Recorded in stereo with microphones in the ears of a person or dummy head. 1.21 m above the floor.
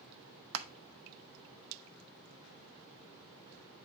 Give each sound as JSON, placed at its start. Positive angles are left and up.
{"t": 0.5, "sound": "crushing", "side_deg": -70, "distance_m": 0.8}